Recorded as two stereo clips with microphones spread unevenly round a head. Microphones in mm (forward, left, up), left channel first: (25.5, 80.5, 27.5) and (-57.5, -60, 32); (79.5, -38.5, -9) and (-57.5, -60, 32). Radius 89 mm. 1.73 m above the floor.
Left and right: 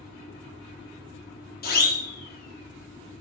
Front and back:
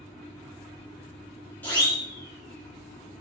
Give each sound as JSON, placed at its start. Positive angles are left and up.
{"t": 1.6, "sound": "a siren", "azimuth_deg": 90, "distance_m": 6.5}